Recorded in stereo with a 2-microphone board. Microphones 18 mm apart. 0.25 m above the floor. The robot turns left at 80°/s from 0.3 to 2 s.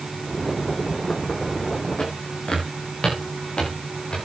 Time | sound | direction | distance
2.0 | footsteps | 65° left (ahead or behind) | 8.5 m